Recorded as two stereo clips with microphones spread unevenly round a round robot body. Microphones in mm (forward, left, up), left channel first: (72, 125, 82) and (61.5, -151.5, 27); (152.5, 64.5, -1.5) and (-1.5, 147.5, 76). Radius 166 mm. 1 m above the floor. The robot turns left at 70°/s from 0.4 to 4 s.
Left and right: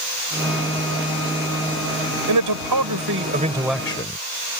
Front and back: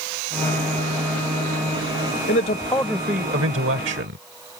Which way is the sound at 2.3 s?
80° right.